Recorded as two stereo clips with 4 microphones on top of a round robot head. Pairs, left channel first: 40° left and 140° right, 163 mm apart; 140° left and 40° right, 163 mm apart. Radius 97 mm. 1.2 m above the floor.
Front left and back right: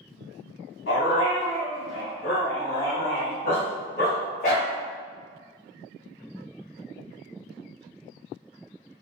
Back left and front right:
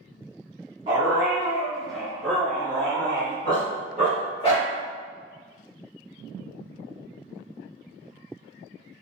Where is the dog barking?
25° left, 1.1 m; by 4.7 s 85° left, 2.5 m.